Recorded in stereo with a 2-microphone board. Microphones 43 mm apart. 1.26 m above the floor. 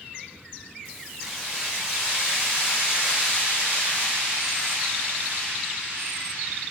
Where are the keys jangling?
10° right (ahead or behind), 3 m; by 6.6 s 55° right (ahead or behind), 4.5 m.